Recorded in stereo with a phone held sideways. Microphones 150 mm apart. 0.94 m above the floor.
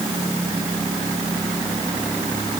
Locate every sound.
Only background noise.